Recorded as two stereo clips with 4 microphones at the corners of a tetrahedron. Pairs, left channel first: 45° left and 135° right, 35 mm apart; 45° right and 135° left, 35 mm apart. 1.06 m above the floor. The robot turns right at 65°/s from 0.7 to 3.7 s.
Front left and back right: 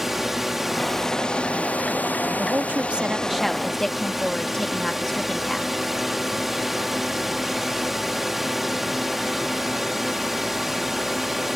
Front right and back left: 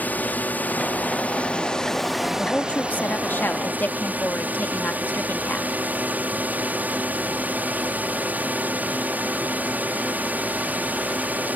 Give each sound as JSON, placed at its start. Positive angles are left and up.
{"t": 0.0, "sound": "a drone", "azimuth_deg": -50}
{"t": 2.4, "sound": "a woman speaking", "azimuth_deg": -110}